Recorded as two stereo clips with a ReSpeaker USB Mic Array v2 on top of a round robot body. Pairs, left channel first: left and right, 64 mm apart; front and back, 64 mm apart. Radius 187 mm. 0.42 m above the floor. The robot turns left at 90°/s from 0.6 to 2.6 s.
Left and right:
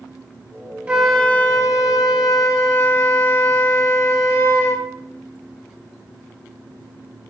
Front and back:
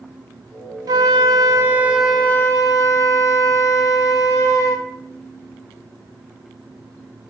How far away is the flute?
About 1.1 m.